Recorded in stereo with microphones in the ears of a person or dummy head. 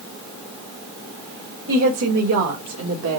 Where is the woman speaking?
80° right, 2.0 m; by 3.2 s 85° right, 1.2 m.